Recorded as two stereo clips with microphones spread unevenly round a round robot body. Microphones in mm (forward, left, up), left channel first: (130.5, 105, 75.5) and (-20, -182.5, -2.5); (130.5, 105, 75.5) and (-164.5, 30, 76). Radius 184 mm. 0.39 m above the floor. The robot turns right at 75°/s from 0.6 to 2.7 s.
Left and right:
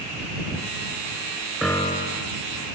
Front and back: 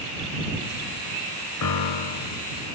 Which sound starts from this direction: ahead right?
A piano, at 1.6 s.